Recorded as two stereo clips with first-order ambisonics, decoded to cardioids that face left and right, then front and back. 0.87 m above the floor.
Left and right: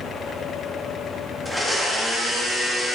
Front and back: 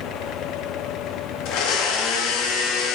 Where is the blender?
Straight ahead, 1.6 m.